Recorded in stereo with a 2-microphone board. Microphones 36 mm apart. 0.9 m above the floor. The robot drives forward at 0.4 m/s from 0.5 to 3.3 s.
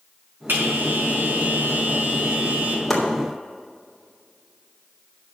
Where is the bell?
85° right, 5 m; by 2.8 s 80° right, 5 m.